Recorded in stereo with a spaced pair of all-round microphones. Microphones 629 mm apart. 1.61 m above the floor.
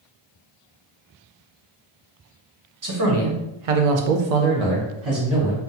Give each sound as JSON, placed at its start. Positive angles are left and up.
{"t": 2.8, "sound": "a man speaking", "side_deg": -30, "distance_m": 0.9}